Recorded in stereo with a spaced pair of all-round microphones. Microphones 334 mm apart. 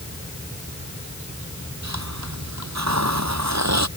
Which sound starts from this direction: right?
A hiss, at 1.8 s.